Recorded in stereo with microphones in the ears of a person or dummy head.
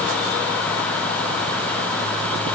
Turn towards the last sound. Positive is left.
No sound to turn to.